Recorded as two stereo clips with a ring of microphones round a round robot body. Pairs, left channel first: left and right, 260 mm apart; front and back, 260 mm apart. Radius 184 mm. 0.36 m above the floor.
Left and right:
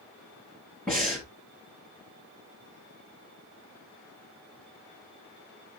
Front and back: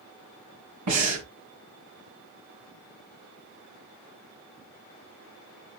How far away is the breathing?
About 2.5 m.